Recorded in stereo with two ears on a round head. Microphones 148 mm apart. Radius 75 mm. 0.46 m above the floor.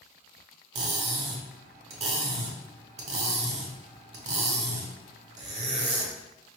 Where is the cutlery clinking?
45° right (ahead or behind), 0.8 m.